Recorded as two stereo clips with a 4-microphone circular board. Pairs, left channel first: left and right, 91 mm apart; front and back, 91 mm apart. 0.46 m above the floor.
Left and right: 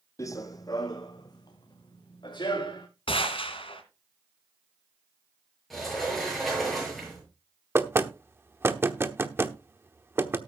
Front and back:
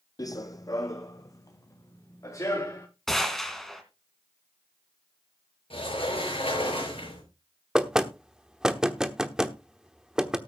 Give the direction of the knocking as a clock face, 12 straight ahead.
4 o'clock.